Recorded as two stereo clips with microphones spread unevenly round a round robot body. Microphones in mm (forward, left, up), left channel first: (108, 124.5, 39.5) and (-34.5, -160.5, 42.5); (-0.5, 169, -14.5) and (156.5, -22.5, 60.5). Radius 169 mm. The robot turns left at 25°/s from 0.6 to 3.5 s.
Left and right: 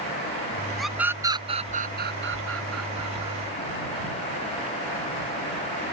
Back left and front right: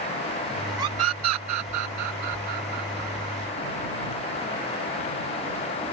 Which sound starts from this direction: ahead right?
A scream, at 0.8 s.